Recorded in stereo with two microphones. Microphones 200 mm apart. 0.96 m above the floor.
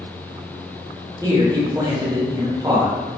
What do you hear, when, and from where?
1.2 s a man speaking: 20° right (ahead or behind), 0.7 m